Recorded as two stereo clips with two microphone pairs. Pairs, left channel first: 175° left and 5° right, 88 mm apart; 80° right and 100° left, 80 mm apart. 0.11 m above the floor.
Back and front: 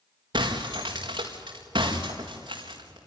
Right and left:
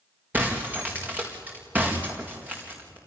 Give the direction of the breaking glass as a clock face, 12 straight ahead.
11 o'clock.